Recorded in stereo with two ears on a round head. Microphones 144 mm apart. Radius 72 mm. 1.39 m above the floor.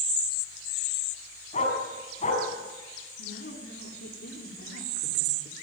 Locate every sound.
1.5 s a dog barking: 45° left (ahead or behind), 5.5 m
3.2 s a woman speaking: 75° left (ahead or behind), 3.5 m